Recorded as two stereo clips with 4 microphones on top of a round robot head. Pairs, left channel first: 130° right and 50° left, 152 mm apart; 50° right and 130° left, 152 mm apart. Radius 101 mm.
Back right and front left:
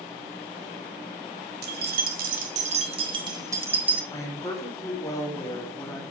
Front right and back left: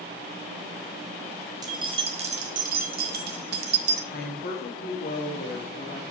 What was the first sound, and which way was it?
Keys jangling, 65° left.